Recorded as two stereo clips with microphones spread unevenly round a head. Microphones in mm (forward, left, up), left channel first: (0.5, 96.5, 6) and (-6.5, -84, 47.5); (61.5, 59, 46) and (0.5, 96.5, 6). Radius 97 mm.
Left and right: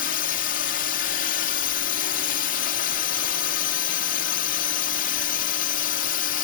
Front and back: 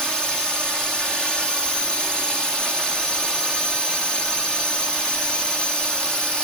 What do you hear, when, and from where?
0.0 s a drone: 65° left